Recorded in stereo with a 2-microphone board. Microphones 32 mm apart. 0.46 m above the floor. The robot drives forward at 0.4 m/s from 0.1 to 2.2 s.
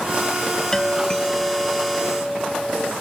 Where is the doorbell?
15° left (ahead or behind); by 2.9 s 20° left (ahead or behind).